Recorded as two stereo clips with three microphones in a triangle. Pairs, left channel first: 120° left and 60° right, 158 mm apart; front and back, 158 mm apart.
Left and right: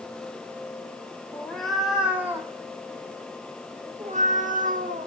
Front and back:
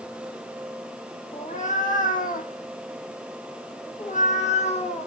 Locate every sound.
1.3 s a cat meowing: 35° left, 1.5 m; by 5.1 s 45° right, 1.8 m